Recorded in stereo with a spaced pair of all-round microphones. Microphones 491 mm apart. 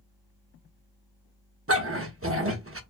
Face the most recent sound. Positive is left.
turn(degrees=-30)  # may be behind; listen again after turning